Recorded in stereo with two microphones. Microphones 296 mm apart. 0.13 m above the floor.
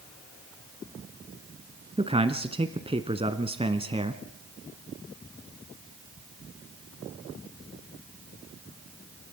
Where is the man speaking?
20° right (ahead or behind), 1.0 m.